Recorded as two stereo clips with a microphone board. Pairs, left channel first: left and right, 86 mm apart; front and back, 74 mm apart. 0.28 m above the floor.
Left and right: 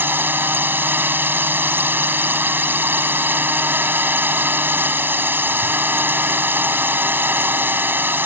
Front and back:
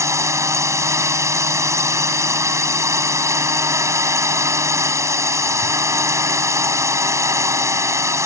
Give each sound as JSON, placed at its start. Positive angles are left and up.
{"t": 0.0, "sound": "a drone", "azimuth_deg": -150}